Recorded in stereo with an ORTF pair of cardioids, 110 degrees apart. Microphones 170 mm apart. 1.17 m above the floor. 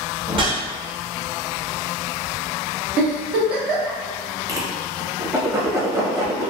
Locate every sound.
0.3 s a whoosh: 30° right, 0.8 m
3.0 s a giggle: 70° right, 1.0 m
4.5 s a whoosh: 20° right, 0.8 m